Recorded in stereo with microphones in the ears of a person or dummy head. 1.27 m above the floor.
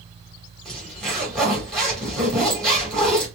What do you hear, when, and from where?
0.7 s a zipper: 5° left (ahead or behind), 2.0 m